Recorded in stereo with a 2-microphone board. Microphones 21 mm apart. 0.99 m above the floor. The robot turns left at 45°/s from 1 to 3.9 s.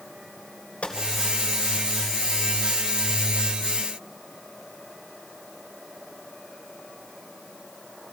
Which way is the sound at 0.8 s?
85° left.